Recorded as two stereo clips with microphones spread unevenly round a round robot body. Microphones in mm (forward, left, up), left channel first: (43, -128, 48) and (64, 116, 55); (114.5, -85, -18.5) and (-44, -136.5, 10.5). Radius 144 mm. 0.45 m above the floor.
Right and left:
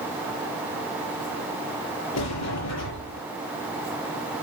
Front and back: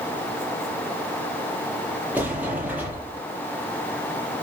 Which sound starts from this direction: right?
A sliding door, at 2.1 s.